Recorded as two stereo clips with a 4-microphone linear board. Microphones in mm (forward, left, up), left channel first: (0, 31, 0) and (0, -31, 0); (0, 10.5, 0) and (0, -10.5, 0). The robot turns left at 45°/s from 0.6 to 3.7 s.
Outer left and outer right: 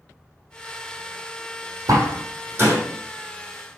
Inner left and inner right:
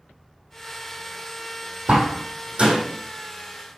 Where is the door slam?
65° right (ahead or behind), 3.5 m; by 2.8 s 30° right (ahead or behind), 3.5 m.